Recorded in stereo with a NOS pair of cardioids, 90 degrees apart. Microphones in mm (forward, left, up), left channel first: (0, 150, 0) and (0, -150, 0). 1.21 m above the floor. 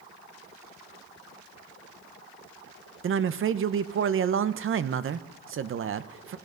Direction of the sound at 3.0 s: 45° right.